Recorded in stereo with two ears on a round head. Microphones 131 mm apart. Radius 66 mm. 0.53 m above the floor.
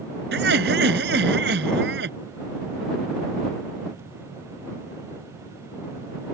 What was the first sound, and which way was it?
Laughter, 80° right.